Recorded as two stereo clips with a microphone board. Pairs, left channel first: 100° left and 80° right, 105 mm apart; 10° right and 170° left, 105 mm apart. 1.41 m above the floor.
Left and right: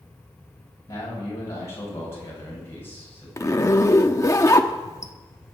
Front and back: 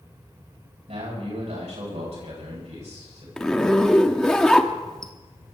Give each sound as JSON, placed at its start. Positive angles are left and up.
{"t": 0.9, "sound": "a man speaking", "azimuth_deg": 165, "distance_m": 9.0}
{"t": 3.4, "sound": "a zipper", "azimuth_deg": 65, "distance_m": 1.0}